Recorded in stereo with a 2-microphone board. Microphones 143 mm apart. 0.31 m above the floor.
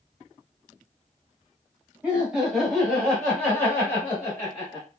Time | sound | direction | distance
2.0 | laughter | 10° right (ahead or behind) | 1.4 m